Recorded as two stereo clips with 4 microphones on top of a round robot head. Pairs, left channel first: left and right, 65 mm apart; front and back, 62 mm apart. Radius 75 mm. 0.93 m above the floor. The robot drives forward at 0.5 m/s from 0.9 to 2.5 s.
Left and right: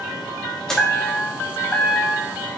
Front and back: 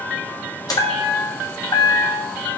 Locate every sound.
0.7 s a chime: 5° left, 1.6 m; by 2.6 s 15° left, 0.8 m